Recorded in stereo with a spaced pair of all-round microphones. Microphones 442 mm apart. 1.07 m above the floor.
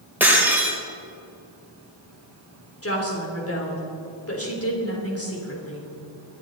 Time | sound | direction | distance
0.2 | breaking glass | 5° right (ahead or behind) | 3 m
2.8 | a woman speaking | 30° left (ahead or behind) | 3.5 m